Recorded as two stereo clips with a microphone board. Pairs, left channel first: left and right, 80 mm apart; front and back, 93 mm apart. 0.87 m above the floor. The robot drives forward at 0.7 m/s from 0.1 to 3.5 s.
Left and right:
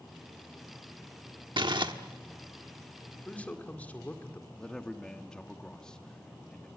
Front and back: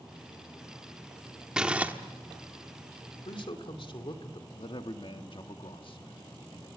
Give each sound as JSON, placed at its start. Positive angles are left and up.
{"t": 1.6, "sound": "crumpling", "azimuth_deg": -100, "distance_m": 1.3}
{"t": 3.2, "sound": "a man speaking", "azimuth_deg": 15, "distance_m": 2.5}
{"t": 4.6, "sound": "a man speaking", "azimuth_deg": 10, "distance_m": 1.5}